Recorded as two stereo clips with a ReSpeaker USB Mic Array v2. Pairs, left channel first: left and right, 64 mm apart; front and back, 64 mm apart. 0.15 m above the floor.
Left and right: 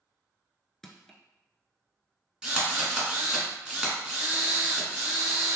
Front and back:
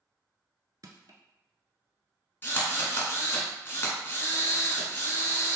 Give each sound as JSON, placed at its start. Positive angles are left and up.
{"t": 0.8, "sound": "crushing", "azimuth_deg": 175, "distance_m": 0.5}
{"t": 2.4, "sound": "a drill", "azimuth_deg": -20, "distance_m": 1.3}